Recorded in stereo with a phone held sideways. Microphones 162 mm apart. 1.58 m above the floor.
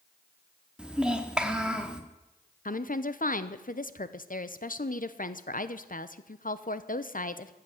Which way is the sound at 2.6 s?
55° left (ahead or behind).